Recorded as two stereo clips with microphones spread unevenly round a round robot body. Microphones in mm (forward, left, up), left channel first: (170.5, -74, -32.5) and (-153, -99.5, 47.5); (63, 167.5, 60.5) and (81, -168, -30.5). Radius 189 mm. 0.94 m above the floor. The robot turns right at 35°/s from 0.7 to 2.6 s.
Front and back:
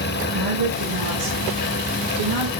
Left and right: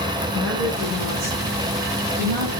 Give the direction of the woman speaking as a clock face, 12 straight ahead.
7 o'clock.